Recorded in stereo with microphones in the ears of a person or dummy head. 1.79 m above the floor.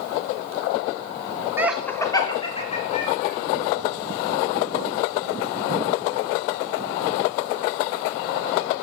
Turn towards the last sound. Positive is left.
turn(degrees=40)  # may be behind; listen again after turning